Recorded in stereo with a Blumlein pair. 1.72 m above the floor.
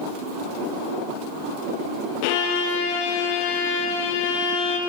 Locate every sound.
2.2 s a violin: 45° left, 1.4 m